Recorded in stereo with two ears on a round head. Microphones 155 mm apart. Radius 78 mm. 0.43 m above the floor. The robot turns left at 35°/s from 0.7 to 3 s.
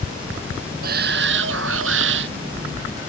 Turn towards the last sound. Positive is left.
turn(degrees=-130)